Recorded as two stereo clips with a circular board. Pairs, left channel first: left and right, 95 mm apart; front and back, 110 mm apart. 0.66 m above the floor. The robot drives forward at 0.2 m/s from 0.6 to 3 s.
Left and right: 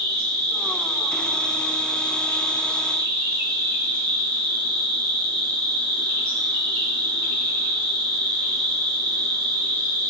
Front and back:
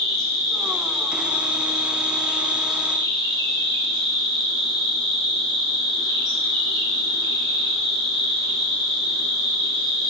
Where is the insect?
140° left, 1.1 m; by 10.1 s 160° left, 1.3 m.